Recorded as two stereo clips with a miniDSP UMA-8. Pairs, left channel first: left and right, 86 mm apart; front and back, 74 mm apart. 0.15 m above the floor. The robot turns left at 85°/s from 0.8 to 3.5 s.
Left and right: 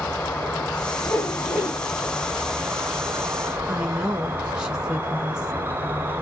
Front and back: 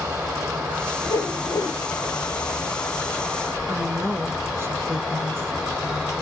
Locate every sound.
0.0 s an insect: 140° left, 1.2 m; by 6.2 s 90° right, 1.2 m
1.1 s a whoosh: 20° left, 2 m; by 1.8 s 40° right, 2 m
3.7 s a woman speaking: 165° right, 1.2 m